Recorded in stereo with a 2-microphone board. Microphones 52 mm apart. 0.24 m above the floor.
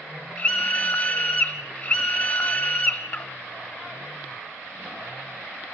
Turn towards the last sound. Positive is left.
turn(degrees=20)  # may be behind; listen again after turning